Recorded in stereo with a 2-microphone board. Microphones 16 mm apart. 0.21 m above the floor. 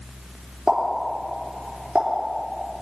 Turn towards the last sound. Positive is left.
turn(degrees=-70)  # may be behind; listen again after turning